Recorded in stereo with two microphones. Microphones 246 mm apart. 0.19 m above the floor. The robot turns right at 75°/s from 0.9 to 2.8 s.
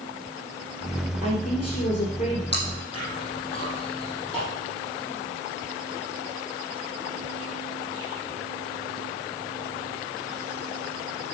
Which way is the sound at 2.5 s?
40° left (ahead or behind).